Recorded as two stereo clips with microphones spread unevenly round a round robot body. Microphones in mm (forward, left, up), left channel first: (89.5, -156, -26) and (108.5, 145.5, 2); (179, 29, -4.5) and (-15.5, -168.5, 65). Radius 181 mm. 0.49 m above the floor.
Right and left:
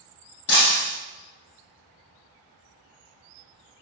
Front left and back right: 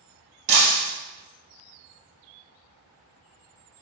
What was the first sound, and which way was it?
Breaking glass, 155° right.